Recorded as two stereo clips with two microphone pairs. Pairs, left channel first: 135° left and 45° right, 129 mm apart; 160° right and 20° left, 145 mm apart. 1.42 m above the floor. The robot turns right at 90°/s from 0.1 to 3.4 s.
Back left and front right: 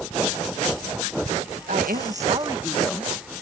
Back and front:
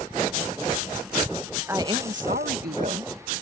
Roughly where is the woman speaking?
Ahead right.